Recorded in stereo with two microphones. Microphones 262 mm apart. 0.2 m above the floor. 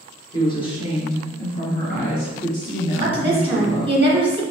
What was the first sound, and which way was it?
A woman speaking, 15° left (ahead or behind).